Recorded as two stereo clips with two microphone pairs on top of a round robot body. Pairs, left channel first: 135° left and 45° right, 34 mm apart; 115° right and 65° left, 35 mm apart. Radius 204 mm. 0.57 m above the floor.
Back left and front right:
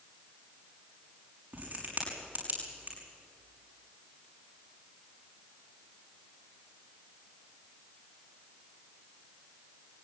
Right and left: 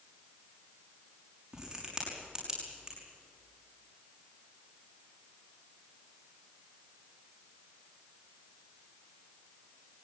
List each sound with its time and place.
1.5 s a crack: 5° right, 6 m